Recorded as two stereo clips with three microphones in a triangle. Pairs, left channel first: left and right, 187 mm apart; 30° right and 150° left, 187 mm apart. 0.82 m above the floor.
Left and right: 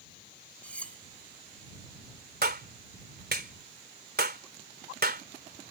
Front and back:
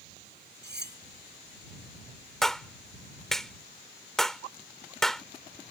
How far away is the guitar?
I don't hear a guitar.